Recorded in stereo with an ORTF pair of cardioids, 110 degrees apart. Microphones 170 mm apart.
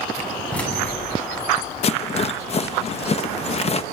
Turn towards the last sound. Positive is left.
turn(degrees=35)